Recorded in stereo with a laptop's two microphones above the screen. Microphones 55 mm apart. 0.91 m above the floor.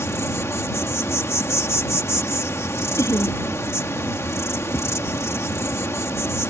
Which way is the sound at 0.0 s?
55° left (ahead or behind).